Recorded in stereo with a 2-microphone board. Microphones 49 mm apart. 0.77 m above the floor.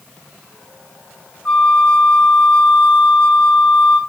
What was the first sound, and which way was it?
A flute, 15° left (ahead or behind).